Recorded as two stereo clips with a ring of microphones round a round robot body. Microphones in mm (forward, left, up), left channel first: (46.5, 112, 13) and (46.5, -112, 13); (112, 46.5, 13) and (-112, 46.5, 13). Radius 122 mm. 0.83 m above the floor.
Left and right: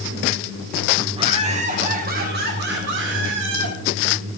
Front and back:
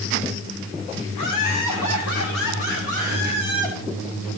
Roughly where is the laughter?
Ahead.